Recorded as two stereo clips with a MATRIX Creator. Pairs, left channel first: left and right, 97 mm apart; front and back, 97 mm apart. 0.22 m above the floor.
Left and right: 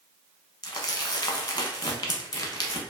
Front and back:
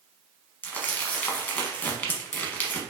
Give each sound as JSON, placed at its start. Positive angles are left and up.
{"t": 0.6, "sound": "crumpling", "azimuth_deg": 70, "distance_m": 0.9}